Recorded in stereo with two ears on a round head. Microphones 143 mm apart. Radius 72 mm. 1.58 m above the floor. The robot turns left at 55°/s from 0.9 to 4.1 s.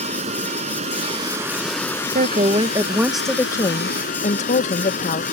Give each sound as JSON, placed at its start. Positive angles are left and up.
{"t": 0.0, "sound": "running water", "azimuth_deg": -135}
{"t": 2.1, "sound": "a woman speaking", "azimuth_deg": -125}